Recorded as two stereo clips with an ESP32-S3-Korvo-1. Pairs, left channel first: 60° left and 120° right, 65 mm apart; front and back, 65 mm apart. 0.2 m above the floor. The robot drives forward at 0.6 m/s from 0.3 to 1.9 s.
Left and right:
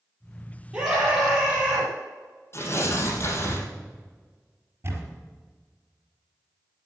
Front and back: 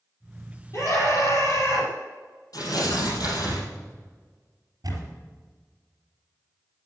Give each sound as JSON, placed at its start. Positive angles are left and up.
{"t": 0.7, "sound": "a scream", "azimuth_deg": -40, "distance_m": 6.0}
{"t": 2.5, "sound": "tearing paper", "azimuth_deg": 10, "distance_m": 4.0}
{"t": 4.8, "sound": "a camera shutter", "azimuth_deg": -165, "distance_m": 4.0}